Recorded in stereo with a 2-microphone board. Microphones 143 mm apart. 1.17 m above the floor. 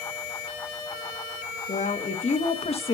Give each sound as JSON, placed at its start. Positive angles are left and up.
{"t": 1.7, "sound": "a woman speaking", "side_deg": 60, "distance_m": 2.0}